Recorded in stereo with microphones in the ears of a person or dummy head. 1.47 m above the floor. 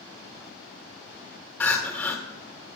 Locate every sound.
1.6 s crying: 5° left (ahead or behind), 1.6 m